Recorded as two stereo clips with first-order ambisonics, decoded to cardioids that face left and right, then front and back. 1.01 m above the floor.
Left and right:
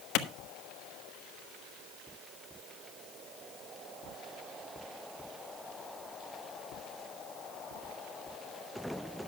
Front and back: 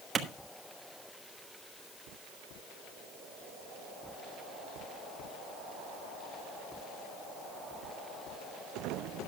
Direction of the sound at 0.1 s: 115° left.